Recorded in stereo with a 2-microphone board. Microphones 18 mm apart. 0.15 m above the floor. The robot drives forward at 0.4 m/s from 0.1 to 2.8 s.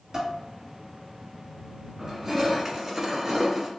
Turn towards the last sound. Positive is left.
turn(degrees=-25)  # may be behind; listen again after turning